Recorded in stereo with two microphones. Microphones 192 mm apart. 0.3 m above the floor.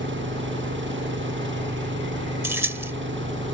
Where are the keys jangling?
10° right (ahead or behind).